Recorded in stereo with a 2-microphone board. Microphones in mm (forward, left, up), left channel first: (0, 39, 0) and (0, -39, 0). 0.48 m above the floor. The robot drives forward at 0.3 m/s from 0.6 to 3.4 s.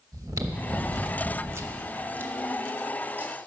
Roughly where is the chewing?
Right.